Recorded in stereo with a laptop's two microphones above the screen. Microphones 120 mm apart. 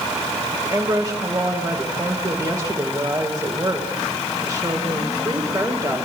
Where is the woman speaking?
30° right (ahead or behind), 3 m.